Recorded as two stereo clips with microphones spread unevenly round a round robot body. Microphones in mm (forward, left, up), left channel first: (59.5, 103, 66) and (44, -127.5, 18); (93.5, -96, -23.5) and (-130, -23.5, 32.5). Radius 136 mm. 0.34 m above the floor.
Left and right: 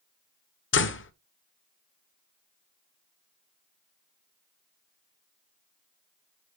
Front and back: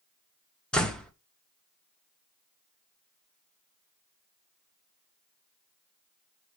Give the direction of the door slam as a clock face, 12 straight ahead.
10 o'clock.